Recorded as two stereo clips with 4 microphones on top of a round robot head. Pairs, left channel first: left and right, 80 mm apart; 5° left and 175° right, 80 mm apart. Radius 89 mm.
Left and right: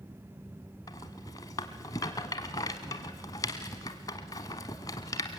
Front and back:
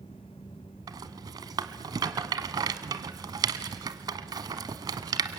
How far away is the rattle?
About 1.1 m.